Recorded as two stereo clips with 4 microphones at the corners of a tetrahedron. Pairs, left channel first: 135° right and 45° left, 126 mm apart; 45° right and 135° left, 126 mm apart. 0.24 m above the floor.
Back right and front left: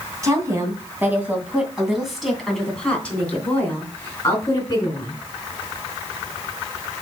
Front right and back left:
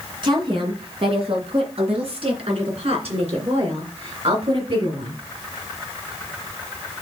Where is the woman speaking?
100° left, 2.5 m; by 5.1 s 165° left, 3.5 m.